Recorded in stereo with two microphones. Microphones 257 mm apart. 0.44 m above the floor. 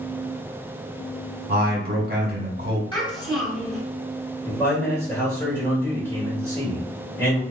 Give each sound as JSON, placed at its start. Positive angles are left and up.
{"t": 1.5, "sound": "a man speaking", "side_deg": -40, "distance_m": 0.9}
{"t": 2.9, "sound": "a child speaking", "side_deg": 20, "distance_m": 1.4}
{"t": 4.5, "sound": "a man speaking", "side_deg": 10, "distance_m": 1.3}